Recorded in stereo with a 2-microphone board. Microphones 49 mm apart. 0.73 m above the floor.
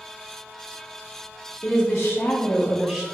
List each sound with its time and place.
1.6 s a woman speaking: 60° left (ahead or behind), 1.0 m; by 3.0 s 5° right (ahead or behind), 0.6 m